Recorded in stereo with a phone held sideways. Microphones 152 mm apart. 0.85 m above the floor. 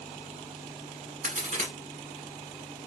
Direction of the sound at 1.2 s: 55° right (ahead or behind).